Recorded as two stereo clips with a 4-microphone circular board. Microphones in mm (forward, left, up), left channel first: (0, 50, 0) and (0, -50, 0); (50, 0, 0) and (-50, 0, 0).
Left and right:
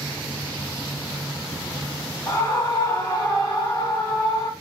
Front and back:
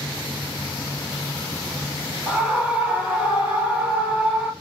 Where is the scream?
115° left, 1.2 m.